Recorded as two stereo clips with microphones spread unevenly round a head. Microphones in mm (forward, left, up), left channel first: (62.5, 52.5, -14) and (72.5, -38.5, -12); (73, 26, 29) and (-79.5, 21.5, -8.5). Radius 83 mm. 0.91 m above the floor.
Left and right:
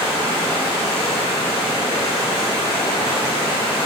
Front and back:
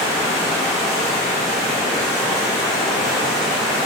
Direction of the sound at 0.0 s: 95° left.